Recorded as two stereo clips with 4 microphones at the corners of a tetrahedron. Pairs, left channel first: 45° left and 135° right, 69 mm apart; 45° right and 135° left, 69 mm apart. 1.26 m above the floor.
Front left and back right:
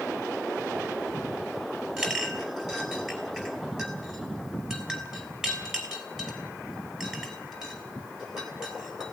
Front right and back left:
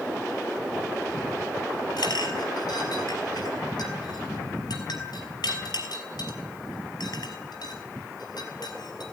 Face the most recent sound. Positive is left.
turn(degrees=-55)